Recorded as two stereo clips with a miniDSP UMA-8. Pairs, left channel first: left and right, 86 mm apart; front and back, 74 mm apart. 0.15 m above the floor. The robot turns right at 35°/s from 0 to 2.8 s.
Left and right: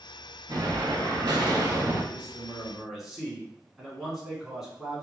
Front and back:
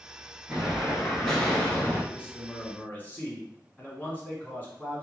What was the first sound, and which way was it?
An explosion, 110° right.